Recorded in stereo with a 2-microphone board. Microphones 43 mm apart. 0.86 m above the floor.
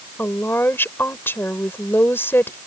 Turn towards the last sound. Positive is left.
turn(degrees=55)  # may be behind; listen again after turning